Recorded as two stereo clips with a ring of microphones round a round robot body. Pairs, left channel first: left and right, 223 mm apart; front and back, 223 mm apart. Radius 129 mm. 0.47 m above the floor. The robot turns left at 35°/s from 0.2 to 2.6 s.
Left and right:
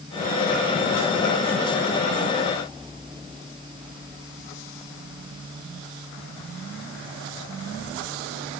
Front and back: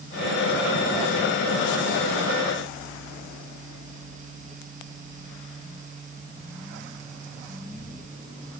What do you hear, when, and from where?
Only background noise.